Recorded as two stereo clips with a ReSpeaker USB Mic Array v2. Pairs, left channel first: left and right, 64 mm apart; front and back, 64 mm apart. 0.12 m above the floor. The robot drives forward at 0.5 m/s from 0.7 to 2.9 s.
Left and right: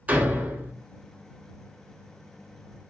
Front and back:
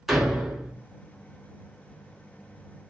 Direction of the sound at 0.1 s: 95° right.